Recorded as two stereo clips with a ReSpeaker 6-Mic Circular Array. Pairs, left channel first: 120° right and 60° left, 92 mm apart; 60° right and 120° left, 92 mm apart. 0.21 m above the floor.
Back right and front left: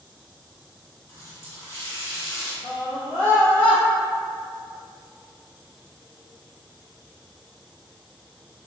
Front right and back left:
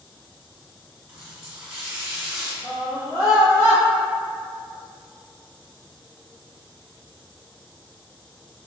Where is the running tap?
160° right, 1.0 m.